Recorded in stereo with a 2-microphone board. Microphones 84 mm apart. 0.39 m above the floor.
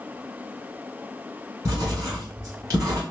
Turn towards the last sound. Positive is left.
turn(degrees=-45)  # may be behind; listen again after turning